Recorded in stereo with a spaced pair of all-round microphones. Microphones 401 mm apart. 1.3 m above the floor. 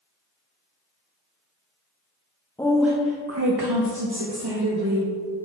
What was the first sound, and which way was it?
A woman speaking, 10° left (ahead or behind).